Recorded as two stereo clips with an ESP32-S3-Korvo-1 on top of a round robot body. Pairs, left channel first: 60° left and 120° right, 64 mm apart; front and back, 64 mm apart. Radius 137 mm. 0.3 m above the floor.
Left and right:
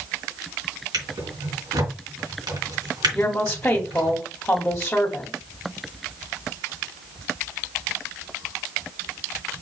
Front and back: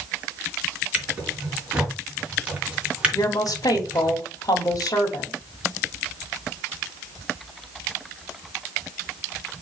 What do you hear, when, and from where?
0.9 s a drawer: 110° right, 3.5 m
3.1 s a woman speaking: 10° right, 2.5 m